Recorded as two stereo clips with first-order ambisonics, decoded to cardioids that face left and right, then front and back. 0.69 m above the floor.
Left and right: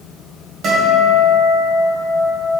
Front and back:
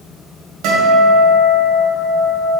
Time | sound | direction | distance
0.6 | a guitar | 150° right | 2 m